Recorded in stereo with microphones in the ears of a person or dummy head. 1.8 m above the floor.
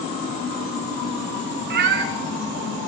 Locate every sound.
1.7 s a cat meowing: 40° right (ahead or behind), 2 m